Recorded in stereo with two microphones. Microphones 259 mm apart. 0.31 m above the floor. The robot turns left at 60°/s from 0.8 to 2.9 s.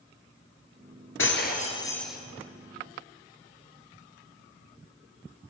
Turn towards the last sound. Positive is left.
turn(degrees=-50)